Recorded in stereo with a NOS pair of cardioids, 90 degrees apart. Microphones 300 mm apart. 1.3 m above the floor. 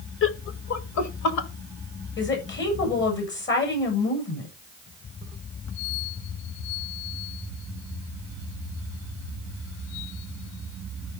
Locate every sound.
0.2 s laughter: 45° left, 1.2 m; by 1.5 s 70° left, 2.5 m
2.2 s a woman speaking: 40° left, 7.5 m